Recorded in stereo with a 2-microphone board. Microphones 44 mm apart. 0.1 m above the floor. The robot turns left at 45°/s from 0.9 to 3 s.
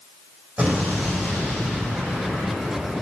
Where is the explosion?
35° right, 4 m; by 3.0 s 130° right, 4 m.